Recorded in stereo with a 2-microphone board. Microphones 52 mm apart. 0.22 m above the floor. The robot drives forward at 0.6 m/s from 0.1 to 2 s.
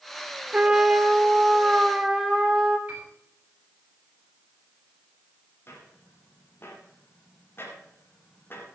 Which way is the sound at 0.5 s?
15° right (ahead or behind).